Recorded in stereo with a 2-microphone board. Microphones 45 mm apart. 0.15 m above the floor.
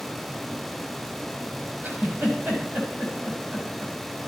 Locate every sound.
1.8 s a giggle: 55° right (ahead or behind), 5.5 m